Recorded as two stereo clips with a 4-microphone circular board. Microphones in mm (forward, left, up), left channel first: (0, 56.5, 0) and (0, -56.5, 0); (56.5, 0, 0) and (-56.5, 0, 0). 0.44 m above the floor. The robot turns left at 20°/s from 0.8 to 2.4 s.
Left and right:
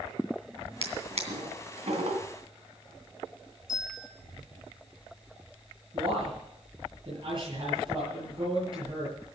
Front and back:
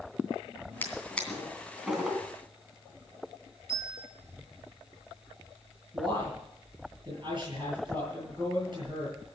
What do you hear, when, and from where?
0.8 s a drawer: 70° right, 2.5 m; by 2.2 s 100° right, 2.5 m
3.7 s a bell: 130° right, 6.5 m
5.9 s a man speaking: 130° right, 8 m